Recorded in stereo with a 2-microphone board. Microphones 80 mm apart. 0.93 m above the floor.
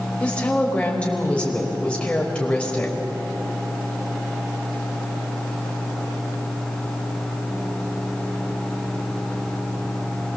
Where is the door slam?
No door slam in this recording.